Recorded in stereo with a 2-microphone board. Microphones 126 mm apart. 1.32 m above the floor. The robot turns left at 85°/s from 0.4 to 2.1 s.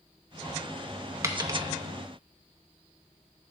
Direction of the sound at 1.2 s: 25° right (ahead or behind).